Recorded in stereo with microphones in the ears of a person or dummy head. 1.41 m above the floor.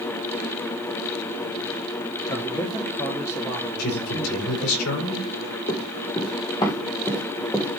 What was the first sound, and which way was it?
A man speaking, 25° left (ahead or behind).